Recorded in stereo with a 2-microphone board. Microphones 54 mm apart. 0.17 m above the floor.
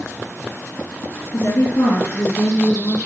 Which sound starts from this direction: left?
A woman speaking, at 1.3 s.